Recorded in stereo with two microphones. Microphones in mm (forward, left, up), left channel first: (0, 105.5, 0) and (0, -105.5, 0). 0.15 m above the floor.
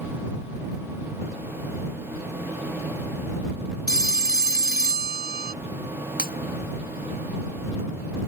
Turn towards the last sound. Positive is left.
turn(degrees=45)  # may be behind; listen again after turning